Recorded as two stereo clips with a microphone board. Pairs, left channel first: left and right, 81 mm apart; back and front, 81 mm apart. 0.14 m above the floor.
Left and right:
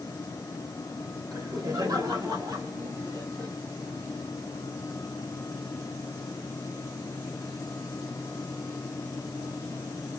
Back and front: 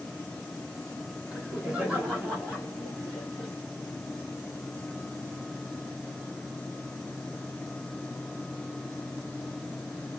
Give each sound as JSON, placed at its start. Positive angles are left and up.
{"t": 1.3, "sound": "laughter", "azimuth_deg": -70, "distance_m": 1.9}